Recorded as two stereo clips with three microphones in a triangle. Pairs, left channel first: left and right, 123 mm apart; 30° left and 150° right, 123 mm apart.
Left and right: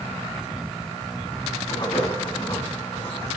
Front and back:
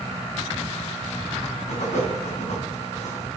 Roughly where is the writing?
Ahead left.